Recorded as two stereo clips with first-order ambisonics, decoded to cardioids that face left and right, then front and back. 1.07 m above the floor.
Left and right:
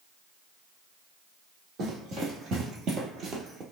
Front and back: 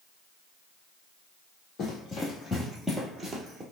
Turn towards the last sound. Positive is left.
turn(degrees=-125)